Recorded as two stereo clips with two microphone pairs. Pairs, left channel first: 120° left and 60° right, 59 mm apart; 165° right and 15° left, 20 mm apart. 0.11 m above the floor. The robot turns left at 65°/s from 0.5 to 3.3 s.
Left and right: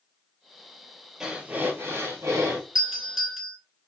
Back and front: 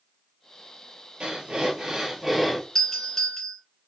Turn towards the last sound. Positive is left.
turn(degrees=-140)